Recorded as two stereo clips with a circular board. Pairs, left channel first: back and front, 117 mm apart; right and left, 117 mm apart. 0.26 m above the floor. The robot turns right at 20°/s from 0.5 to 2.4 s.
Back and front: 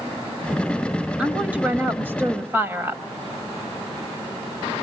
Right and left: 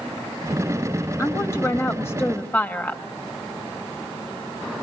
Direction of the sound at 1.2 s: 65° right.